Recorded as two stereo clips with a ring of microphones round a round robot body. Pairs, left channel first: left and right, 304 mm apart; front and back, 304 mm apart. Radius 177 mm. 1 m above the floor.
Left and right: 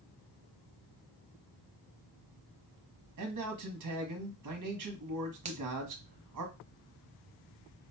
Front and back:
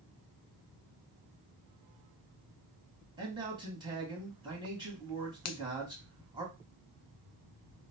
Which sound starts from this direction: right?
A man speaking, at 3.2 s.